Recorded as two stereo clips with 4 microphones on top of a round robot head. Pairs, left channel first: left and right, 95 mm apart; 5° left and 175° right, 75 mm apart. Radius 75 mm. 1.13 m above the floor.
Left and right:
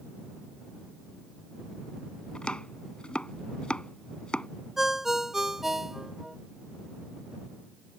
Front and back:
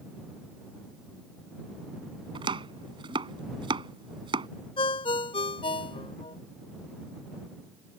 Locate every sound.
2.4 s chopping: 175° left
4.8 s a ringtone: 5° right